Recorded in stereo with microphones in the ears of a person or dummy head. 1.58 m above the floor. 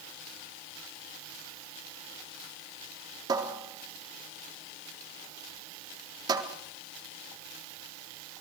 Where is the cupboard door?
25° right (ahead or behind), 3.5 m.